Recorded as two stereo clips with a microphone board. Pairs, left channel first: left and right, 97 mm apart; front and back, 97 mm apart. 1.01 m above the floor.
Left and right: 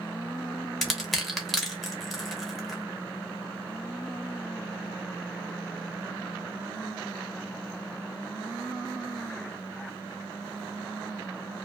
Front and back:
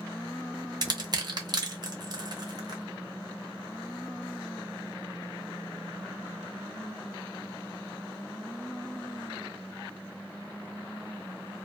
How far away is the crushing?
About 0.7 m.